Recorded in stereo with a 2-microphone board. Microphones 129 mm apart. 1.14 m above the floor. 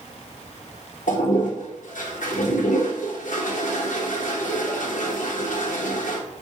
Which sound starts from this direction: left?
A toilet flushing, at 1.1 s.